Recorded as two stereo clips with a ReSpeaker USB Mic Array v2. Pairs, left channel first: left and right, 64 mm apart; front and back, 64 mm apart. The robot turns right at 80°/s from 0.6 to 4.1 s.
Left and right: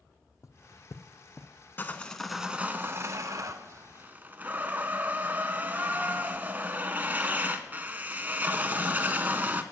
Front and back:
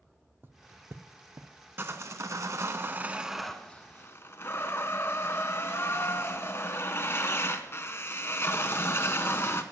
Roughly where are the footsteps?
Behind left.